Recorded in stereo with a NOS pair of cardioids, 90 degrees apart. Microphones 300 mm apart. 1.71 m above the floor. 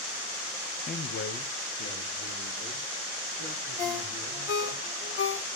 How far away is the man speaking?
About 0.8 m.